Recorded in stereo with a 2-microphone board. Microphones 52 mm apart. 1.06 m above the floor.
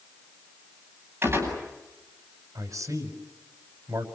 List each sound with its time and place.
1.2 s a gunshot: 40° right (ahead or behind), 9 m
2.5 s a man speaking: 80° right, 5 m